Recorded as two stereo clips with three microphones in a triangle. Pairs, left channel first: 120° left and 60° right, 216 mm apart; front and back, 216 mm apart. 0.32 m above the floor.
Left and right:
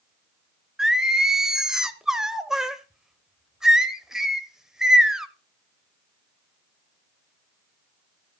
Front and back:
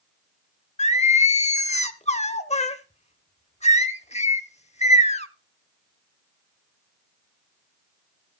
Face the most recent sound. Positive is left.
turn(degrees=25)